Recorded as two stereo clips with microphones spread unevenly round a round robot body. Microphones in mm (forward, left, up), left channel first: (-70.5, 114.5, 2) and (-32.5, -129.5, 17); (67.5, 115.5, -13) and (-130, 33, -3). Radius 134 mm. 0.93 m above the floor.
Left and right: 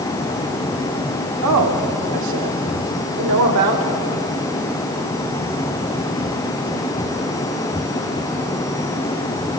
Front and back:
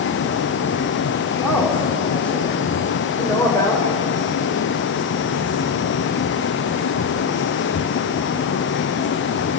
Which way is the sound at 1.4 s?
65° right.